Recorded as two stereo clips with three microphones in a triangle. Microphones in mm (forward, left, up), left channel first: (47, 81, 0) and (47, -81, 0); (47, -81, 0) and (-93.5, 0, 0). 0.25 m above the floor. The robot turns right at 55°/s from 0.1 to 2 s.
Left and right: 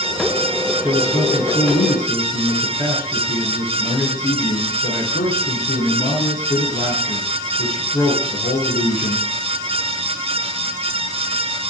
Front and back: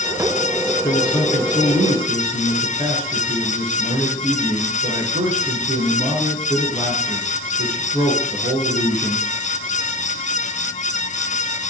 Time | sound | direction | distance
0.8 | a man speaking | 35° left | 4 m